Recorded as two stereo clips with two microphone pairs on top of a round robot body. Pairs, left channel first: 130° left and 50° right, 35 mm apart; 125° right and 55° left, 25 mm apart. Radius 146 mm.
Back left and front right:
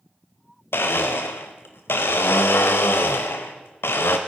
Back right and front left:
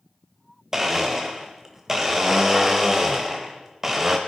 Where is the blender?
120° left, 0.6 m.